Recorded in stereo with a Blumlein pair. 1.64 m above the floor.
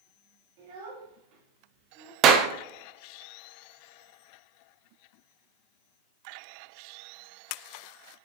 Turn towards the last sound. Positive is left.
turn(degrees=-30)